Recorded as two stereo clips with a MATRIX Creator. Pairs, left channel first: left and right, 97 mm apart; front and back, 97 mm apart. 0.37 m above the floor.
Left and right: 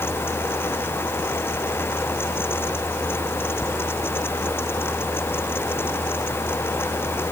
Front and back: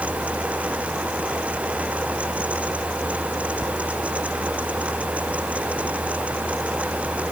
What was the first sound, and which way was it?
Only background noise.